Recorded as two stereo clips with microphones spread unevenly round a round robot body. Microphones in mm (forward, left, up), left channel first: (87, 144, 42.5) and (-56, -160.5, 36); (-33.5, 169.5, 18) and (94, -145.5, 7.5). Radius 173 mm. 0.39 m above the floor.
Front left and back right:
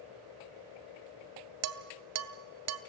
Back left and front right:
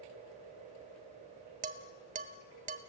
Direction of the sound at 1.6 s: 130° right.